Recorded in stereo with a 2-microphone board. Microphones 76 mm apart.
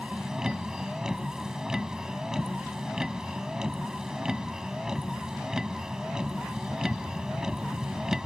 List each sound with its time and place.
0.0 s a vehicle: 10° right (ahead or behind)